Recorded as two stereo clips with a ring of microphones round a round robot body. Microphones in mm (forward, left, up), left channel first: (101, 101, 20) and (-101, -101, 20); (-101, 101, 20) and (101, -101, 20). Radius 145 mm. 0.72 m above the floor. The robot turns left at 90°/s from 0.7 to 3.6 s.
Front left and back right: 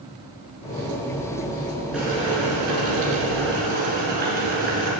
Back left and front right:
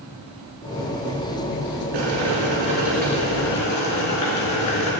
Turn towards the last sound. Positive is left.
turn(degrees=165)